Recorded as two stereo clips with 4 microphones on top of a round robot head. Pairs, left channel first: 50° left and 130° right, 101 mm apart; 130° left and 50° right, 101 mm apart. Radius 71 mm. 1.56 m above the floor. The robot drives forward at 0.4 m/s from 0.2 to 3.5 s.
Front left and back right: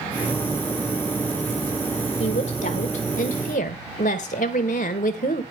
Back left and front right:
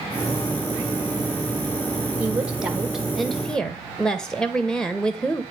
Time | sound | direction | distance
2.2 | a woman speaking | 25° left | 1.2 m